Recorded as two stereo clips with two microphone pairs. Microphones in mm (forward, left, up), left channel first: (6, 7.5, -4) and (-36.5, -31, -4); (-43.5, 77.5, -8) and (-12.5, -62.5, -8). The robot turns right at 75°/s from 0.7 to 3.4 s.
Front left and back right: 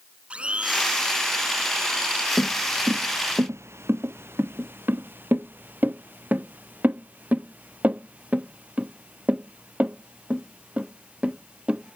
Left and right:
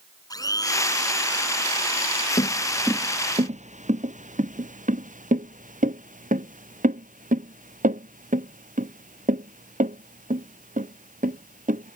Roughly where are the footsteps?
Behind left.